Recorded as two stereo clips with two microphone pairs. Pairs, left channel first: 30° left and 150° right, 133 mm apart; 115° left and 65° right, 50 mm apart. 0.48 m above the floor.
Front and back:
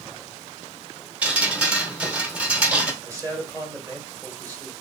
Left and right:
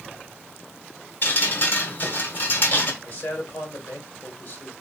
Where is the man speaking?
150° left, 2 m.